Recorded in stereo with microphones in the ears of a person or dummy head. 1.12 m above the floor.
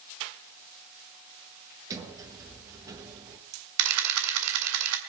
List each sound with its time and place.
1.9 s a sliding door: 20° right (ahead or behind), 1.4 m
3.8 s a camera shutter: 75° right (ahead or behind), 2 m